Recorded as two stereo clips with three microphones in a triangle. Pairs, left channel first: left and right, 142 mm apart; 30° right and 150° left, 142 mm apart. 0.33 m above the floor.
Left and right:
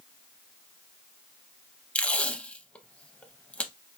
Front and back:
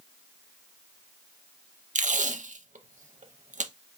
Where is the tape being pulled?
170° left, 0.5 m.